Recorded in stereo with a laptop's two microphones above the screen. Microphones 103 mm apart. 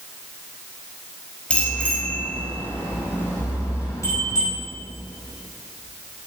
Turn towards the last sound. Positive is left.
turn(degrees=35)  # may be behind; listen again after turning